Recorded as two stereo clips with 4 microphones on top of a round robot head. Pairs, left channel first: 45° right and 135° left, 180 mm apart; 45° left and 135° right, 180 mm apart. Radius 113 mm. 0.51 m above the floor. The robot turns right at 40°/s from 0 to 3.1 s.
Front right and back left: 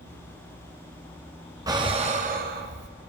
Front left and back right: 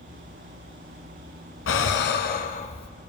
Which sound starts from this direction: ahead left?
Breathing, at 1.7 s.